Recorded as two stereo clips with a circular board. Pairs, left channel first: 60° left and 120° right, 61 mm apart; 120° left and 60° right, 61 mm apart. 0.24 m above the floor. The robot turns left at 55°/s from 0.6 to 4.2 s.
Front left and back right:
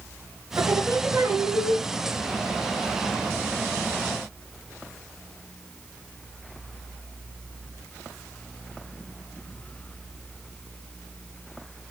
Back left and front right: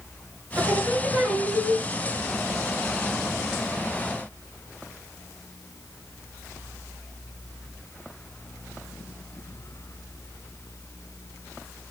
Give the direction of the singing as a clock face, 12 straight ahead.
4 o'clock.